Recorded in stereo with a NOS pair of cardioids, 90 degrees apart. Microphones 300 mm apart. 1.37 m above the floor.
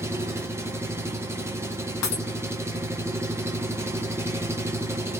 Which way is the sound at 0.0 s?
10° right.